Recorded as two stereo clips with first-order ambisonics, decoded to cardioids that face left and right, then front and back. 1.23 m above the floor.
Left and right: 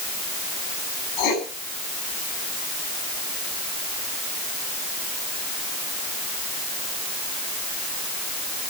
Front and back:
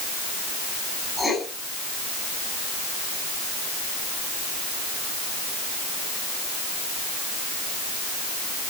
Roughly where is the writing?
Left.